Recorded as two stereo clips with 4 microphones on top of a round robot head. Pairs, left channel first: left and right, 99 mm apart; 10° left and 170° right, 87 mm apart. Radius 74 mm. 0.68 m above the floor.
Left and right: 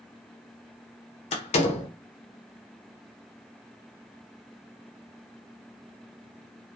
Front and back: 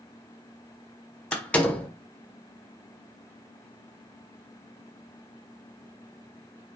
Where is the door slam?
85° left, 1.2 m.